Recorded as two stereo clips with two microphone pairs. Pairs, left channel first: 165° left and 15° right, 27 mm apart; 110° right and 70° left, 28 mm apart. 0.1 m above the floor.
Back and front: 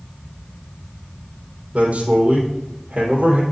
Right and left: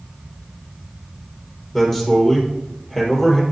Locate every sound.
1.7 s a man speaking: 40° right, 3.5 m